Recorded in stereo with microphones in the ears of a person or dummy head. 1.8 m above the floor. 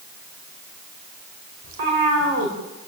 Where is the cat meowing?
75° right (ahead or behind), 4 m.